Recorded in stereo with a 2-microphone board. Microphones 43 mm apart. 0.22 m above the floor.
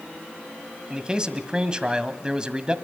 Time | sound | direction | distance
0.9 | a man speaking | 20° right (ahead or behind) | 1.4 m